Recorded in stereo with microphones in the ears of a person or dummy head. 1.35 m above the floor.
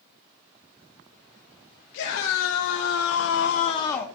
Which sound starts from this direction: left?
A scream, at 1.9 s.